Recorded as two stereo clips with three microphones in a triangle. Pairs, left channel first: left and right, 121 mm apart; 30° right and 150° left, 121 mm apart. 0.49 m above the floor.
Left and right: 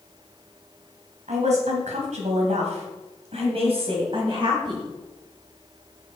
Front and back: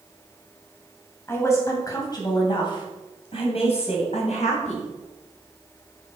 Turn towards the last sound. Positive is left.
turn(degrees=-40)